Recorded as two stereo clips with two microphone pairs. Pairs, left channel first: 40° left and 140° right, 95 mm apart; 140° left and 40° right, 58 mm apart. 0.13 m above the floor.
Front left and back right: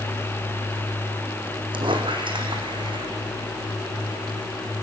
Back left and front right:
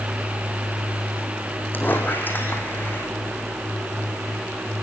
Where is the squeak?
170° right, 4 m.